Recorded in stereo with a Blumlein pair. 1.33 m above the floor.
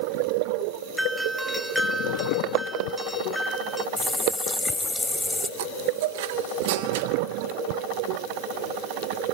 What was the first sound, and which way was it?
A doorbell, straight ahead.